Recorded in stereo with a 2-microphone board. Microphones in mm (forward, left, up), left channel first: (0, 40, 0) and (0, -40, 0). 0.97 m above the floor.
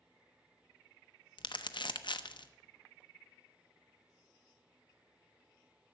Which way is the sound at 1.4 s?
75° left (ahead or behind).